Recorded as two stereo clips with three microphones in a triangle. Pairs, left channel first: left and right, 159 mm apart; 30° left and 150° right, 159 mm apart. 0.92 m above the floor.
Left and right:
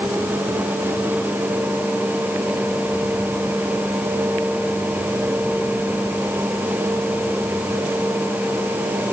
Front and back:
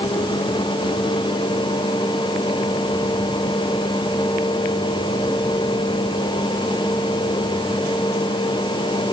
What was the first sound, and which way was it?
Only background noise.